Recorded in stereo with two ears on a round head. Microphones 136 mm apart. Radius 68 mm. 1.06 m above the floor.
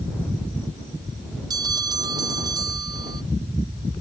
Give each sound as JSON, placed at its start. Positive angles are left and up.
{"t": 1.5, "sound": "a bell", "side_deg": -25}